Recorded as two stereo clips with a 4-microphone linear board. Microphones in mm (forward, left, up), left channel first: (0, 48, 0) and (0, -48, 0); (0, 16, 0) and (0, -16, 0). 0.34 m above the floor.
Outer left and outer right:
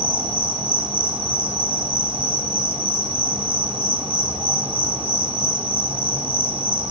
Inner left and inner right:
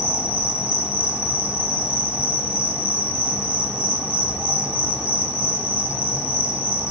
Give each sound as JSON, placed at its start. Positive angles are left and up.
{"t": 0.0, "sound": "an insect", "side_deg": -65, "distance_m": 4.5}